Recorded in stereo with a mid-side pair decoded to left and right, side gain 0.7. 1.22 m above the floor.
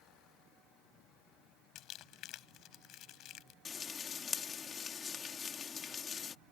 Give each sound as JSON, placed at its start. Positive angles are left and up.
{"t": 1.8, "sound": "crumpling", "azimuth_deg": 55}
{"t": 3.6, "sound": "frying", "azimuth_deg": 30}